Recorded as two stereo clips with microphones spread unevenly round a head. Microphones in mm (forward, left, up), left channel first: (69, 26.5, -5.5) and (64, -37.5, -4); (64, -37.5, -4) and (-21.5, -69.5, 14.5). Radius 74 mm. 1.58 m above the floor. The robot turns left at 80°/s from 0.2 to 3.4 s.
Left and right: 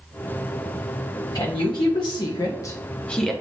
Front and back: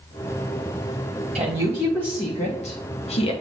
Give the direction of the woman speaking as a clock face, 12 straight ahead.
7 o'clock.